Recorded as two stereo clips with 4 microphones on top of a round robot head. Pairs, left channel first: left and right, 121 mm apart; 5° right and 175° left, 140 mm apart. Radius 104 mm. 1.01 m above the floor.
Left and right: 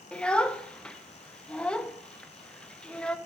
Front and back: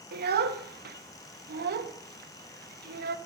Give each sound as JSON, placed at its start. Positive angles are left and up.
{"t": 0.1, "sound": "a child speaking", "azimuth_deg": 170, "distance_m": 0.7}